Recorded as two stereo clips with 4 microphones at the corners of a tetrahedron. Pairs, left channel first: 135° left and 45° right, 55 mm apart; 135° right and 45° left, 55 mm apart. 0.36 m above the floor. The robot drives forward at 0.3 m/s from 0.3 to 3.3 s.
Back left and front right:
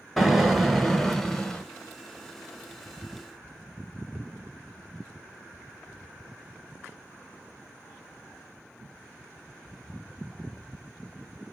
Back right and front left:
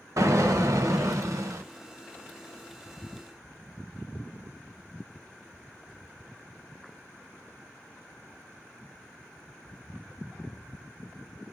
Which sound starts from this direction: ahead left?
An explosion, at 0.2 s.